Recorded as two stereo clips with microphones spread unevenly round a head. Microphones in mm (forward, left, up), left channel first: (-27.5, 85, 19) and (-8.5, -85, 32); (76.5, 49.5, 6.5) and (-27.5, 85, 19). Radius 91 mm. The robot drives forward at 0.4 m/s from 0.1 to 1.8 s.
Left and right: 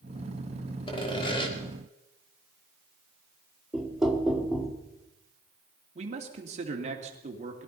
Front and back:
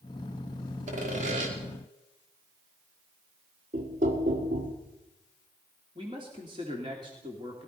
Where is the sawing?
155° left, 2.5 m; by 1.5 s 160° left, 2.5 m.